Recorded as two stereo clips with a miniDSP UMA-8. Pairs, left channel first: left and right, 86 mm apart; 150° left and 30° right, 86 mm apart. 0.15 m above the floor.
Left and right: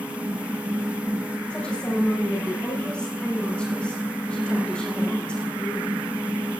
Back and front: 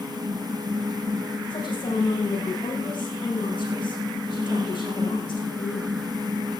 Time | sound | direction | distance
1.5 | a woman speaking | 170° left | 9.5 m